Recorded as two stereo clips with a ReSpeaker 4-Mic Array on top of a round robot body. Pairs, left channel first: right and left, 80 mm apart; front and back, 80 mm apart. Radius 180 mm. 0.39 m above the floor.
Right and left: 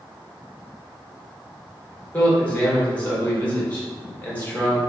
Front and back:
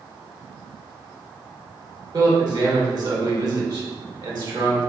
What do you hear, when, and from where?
2.1 s a man speaking: 160° right, 2.0 m